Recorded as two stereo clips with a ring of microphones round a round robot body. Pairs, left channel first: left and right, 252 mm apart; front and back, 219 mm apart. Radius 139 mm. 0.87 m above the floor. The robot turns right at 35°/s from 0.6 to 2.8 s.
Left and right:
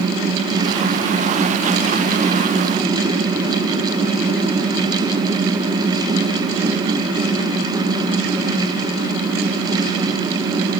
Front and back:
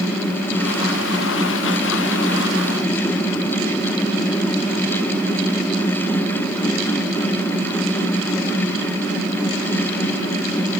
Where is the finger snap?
No finger snap in this recording.